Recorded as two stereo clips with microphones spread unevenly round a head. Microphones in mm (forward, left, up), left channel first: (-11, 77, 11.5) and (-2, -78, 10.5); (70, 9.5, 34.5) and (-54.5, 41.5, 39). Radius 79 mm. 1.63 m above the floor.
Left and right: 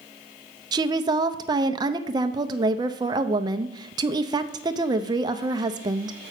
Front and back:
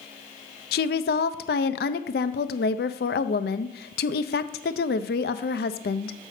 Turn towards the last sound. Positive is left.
turn(degrees=-20)